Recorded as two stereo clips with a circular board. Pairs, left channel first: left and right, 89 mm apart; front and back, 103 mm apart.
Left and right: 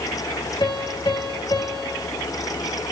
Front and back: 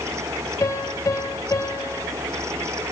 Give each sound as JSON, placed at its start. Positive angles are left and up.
{"t": 0.6, "sound": "a piano", "azimuth_deg": 55, "distance_m": 1.8}